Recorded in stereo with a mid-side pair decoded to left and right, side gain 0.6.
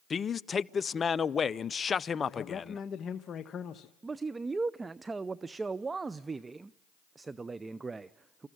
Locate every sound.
0.1 s a man speaking: 30° left, 0.6 m
2.3 s a man speaking: 40° left, 1.0 m
4.0 s a man speaking: 20° right, 0.5 m